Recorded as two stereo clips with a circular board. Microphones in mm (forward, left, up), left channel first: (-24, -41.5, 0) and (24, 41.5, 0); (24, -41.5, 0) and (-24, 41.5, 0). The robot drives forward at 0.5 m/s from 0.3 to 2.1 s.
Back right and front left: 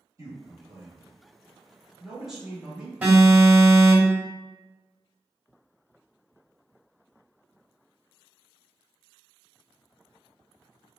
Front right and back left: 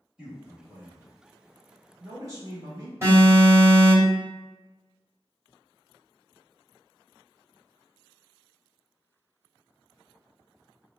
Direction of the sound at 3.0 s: 120° left.